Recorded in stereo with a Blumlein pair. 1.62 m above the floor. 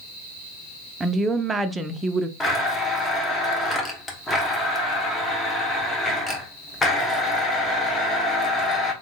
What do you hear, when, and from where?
1.0 s a woman speaking: 10° right, 0.5 m
2.4 s a blender: 15° left, 1.0 m